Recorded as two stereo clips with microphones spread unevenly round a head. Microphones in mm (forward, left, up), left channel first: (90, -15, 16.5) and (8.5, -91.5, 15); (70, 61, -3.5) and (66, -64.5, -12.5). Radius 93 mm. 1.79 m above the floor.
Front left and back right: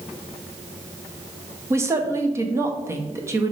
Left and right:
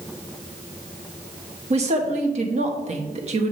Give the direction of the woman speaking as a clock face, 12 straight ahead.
3 o'clock.